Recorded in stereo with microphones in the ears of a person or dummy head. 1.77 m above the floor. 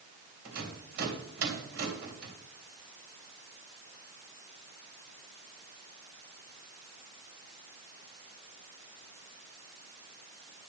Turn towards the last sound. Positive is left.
turn(degrees=-60)  # may be behind; listen again after turning